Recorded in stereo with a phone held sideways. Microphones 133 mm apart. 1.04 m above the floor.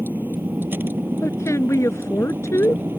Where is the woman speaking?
20° left (ahead or behind).